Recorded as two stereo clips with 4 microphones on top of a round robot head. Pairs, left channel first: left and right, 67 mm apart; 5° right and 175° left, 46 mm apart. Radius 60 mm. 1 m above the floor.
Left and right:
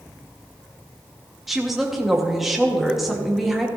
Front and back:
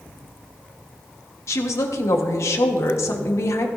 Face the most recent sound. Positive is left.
turn(degrees=-5)